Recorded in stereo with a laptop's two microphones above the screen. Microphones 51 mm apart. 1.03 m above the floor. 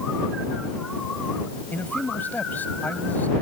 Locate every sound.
1.7 s a man speaking: 35° left (ahead or behind)